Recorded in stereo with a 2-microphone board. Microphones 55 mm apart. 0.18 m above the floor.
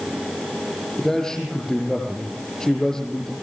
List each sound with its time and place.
1.0 s a man speaking: 10° left (ahead or behind), 6.5 m